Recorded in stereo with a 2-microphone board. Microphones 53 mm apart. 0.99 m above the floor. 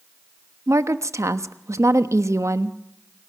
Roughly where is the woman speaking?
Right.